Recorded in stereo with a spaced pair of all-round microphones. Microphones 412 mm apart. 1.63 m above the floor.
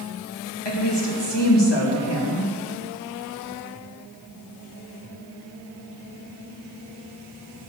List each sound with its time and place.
0.7 s a woman speaking: 85° left, 2.5 m